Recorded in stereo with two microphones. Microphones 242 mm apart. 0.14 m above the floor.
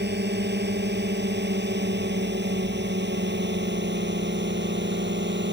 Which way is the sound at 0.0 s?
45° right (ahead or behind).